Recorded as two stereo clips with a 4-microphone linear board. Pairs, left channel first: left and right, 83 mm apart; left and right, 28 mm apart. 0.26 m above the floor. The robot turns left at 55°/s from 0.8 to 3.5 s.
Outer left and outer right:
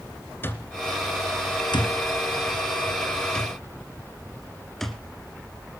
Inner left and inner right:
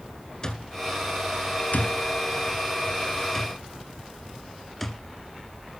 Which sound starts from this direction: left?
An alarm clock, at 0.4 s.